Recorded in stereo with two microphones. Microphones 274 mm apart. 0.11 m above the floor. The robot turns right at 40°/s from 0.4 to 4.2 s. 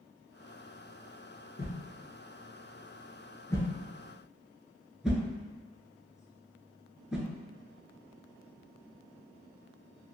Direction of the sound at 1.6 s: 35° left (ahead or behind).